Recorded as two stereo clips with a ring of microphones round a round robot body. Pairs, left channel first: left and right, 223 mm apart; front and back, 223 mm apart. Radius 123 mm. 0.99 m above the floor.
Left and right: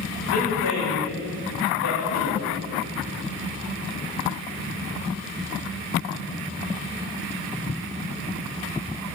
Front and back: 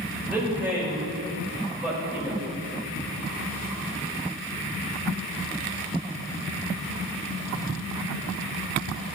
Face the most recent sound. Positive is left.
turn(degrees=95)